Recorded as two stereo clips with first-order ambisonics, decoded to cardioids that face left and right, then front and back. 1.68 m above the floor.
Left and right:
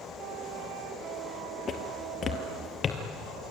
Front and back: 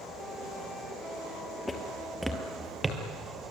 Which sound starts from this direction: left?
Footsteps, at 1.7 s.